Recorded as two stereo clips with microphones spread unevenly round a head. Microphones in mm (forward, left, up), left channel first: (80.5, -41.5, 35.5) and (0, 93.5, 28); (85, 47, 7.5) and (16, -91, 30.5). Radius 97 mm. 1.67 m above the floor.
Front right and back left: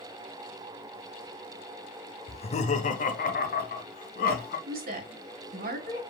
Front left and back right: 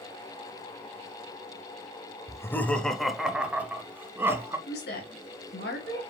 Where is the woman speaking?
95° left, 1.8 m.